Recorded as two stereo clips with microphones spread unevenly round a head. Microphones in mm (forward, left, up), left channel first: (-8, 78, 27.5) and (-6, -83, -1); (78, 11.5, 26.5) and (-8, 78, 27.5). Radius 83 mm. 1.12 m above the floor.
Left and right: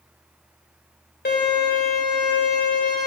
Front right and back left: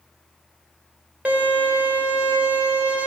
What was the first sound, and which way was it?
A violin, 65° left.